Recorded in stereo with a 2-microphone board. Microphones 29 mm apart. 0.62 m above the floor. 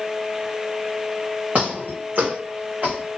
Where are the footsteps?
65° right (ahead or behind), 1.9 m.